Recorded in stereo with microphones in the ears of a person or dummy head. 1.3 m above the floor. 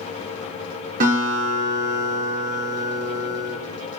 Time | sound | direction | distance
1.0 | a guitar | 55° right (ahead or behind) | 4 m